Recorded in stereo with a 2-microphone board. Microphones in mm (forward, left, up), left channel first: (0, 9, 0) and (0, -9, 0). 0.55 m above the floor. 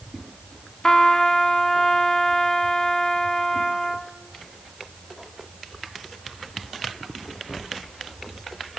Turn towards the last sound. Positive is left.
turn(degrees=25)  # may be behind; listen again after turning